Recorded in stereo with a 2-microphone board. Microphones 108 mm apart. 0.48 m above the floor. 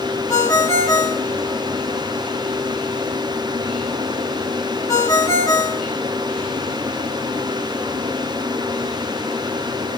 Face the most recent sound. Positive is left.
turn(degrees=30)  # may be behind; listen again after turning